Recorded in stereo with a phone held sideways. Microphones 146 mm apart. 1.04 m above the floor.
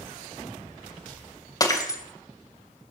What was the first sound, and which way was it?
Breaking glass, 25° left (ahead or behind).